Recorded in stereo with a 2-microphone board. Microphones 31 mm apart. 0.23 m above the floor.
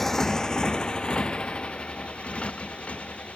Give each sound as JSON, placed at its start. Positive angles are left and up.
{"t": 0.0, "sound": "a motorcycle", "side_deg": 10}